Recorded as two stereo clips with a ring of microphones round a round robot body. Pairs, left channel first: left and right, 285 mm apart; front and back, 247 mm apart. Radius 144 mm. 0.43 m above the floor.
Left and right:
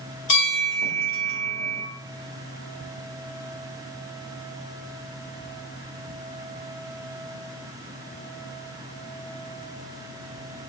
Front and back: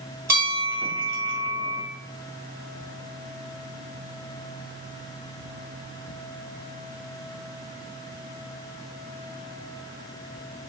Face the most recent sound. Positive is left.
turn(degrees=105)